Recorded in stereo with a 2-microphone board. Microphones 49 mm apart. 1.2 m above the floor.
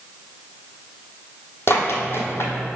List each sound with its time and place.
1.7 s running footsteps: 50° left (ahead or behind), 1.9 m; by 2.8 s 55° left (ahead or behind), 2 m